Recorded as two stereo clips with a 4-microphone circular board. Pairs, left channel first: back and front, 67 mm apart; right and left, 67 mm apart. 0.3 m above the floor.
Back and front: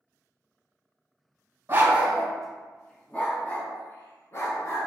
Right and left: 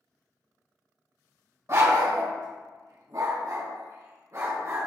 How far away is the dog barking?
About 0.7 m.